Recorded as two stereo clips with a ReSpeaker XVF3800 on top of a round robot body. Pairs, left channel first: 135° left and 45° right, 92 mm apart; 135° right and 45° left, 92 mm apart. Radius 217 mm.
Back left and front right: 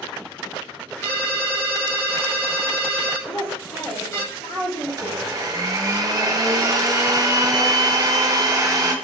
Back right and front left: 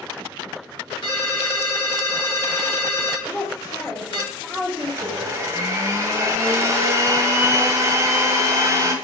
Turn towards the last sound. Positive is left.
turn(degrees=-5)